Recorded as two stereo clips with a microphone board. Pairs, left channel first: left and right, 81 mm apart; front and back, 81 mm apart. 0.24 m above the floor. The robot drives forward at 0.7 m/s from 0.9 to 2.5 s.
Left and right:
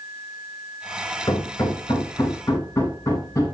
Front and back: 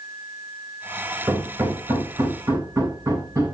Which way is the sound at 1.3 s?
140° left.